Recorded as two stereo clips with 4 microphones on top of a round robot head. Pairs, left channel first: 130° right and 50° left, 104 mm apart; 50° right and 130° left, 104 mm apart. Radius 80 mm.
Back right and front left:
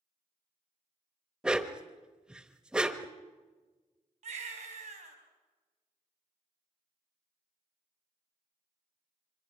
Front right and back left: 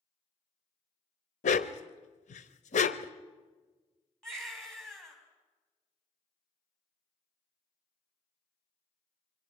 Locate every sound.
1.4 s a dog barking: 35° right, 0.8 m
4.2 s a baby crying: 35° left, 4.5 m